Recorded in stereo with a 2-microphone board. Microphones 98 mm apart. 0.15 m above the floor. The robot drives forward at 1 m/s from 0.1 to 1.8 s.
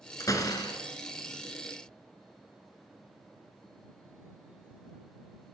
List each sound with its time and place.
0.2 s a door slam: 35° left (ahead or behind), 1.2 m; by 0.8 s 45° left (ahead or behind), 0.9 m